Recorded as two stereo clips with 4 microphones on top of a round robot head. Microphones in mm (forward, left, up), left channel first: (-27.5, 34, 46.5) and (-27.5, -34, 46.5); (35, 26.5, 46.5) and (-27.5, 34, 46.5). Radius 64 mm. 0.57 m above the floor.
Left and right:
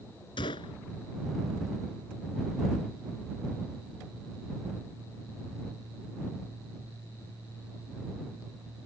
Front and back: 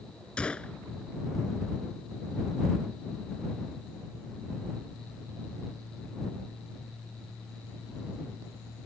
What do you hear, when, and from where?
0.4 s a gunshot: 70° left